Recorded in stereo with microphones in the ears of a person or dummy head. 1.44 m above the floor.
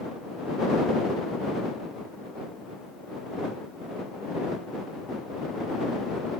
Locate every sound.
Only background noise.